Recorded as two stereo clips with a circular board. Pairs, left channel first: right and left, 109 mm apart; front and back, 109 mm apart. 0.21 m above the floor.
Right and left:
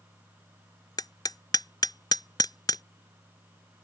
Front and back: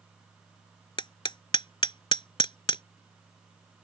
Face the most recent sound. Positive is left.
turn(degrees=-40)